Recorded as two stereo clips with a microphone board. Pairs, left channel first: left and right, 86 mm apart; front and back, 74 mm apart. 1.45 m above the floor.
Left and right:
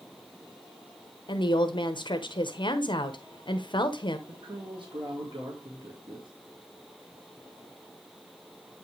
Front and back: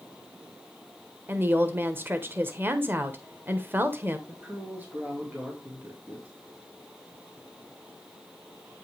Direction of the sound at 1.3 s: 115° left.